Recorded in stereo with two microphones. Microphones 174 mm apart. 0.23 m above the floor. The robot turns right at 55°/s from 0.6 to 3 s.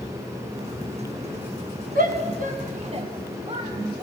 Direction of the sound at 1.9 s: 55° right (ahead or behind).